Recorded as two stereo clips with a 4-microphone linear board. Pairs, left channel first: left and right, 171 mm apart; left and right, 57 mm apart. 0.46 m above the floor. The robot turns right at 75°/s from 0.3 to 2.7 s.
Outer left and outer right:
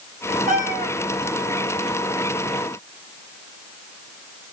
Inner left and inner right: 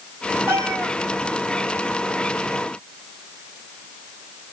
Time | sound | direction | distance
0.5 | a cat meowing | 125° right | 1.2 m